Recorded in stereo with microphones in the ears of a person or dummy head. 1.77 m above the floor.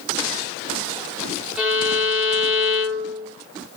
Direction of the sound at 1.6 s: 5° right (ahead or behind).